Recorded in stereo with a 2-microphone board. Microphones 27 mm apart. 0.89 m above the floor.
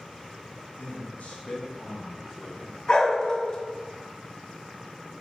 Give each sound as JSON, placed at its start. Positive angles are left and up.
{"t": 0.8, "sound": "a man speaking", "side_deg": 65, "distance_m": 1.2}
{"t": 2.9, "sound": "a dog barking", "side_deg": 30, "distance_m": 0.7}